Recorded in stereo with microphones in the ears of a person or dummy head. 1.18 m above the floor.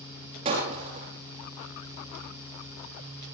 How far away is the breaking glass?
About 8 m.